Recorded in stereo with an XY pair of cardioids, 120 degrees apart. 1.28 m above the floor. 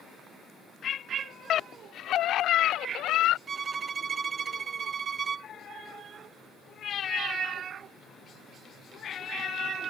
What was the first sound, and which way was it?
A scream, 55° left.